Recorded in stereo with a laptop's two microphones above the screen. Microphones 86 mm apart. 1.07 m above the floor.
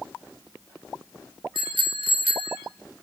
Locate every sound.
1.6 s a bicycle bell: 75° right (ahead or behind), 2 m